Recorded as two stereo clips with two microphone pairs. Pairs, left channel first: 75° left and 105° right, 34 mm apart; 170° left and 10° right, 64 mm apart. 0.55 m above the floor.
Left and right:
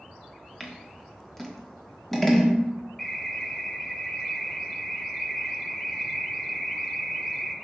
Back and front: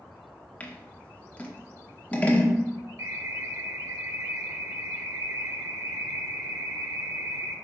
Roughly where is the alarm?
Ahead.